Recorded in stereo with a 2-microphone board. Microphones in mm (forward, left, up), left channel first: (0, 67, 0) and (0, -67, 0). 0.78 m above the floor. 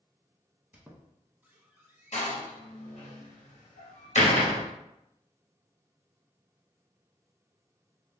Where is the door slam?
60° left (ahead or behind), 0.8 m.